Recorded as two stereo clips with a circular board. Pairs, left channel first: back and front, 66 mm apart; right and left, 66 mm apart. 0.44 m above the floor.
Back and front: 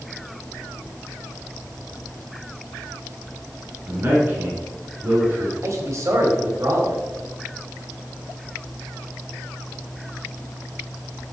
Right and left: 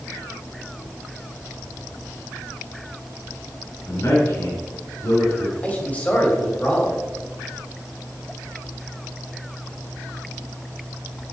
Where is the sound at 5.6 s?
30° right, 2.5 m.